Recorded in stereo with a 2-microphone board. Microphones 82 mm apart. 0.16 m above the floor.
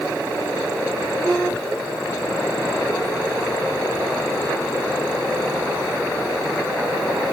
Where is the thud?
I don't hear a thud.